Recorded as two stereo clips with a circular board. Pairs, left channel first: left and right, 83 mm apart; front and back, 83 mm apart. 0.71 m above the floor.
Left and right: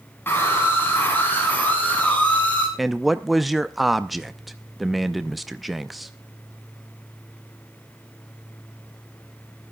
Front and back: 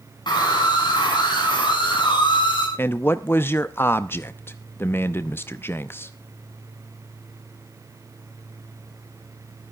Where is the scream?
25° left, 7.5 m; by 2.7 s 15° left, 7 m.